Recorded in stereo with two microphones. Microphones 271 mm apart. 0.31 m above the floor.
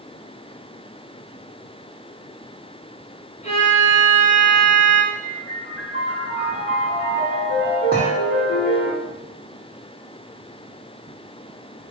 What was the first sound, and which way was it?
A violin, 25° left (ahead or behind).